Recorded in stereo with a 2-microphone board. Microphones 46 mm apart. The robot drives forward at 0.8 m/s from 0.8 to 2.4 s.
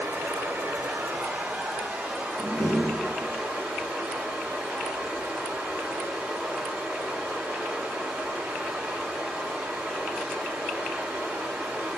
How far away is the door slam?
About 1.5 m.